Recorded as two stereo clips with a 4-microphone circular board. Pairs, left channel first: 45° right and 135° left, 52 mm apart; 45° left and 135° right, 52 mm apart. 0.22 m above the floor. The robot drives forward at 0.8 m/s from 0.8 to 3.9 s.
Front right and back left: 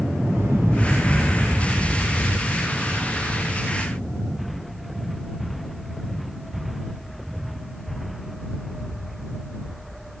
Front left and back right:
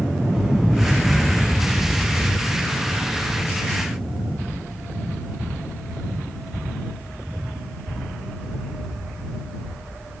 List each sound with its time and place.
0.3 s an explosion: 145° left, 2.5 m; by 5.0 s 165° left, 4.5 m